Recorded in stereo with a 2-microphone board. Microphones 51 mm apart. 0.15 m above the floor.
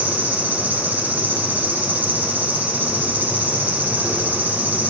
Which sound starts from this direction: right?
An insect, at 0.0 s.